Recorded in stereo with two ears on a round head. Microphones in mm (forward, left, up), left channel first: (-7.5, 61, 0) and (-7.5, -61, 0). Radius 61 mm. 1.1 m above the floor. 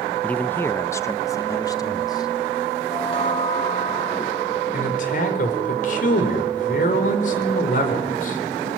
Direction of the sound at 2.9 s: 40° left (ahead or behind).